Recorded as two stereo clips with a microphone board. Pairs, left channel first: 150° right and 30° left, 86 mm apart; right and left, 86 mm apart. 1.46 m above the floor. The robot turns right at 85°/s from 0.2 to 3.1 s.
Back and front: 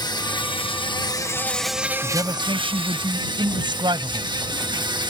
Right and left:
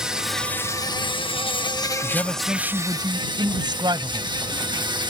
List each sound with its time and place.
0.0 s an insect: 175° left; by 5.1 s 60° left
2.0 s a man speaking: 35° right; by 4.3 s 60° left